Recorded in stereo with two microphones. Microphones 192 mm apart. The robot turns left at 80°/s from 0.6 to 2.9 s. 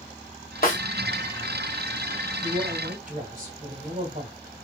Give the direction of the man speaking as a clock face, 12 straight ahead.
2 o'clock.